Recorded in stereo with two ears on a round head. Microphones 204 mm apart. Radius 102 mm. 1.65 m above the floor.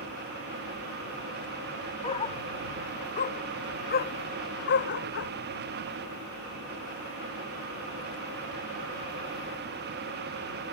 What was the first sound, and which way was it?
A dog barking, 25° left (ahead or behind).